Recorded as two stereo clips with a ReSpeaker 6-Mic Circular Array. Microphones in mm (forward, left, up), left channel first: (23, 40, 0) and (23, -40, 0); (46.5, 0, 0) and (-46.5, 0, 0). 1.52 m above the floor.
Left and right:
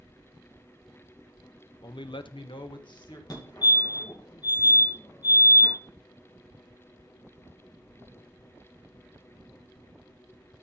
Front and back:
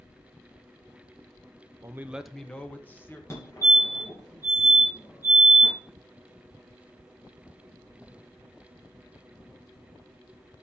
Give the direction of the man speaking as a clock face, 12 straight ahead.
8 o'clock.